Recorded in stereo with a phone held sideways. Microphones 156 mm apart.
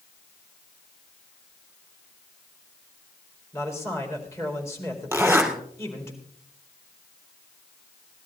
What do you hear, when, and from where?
3.5 s a man speaking: 15° left (ahead or behind), 4 m
5.1 s a zipper: 15° right (ahead or behind), 3 m